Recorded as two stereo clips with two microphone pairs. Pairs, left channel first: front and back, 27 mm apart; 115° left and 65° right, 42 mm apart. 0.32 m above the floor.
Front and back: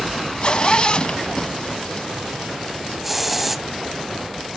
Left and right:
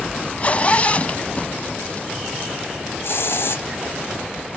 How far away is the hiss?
About 0.9 m.